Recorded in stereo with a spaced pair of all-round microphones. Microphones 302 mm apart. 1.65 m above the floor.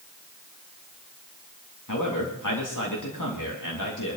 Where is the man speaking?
85° left, 3 m.